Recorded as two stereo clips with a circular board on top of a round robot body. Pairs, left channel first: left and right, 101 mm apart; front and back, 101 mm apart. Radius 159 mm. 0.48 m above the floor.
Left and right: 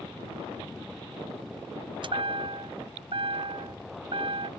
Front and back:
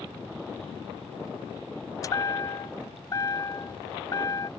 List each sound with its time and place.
2.0 s a chime: 55° right